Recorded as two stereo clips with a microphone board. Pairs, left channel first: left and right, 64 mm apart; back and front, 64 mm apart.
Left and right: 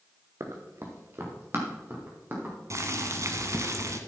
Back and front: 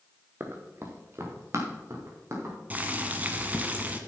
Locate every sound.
0.4 s running footsteps: 55° right, 1.6 m; by 2.5 s 35° right, 4 m
2.7 s boiling: 60° right, 1.0 m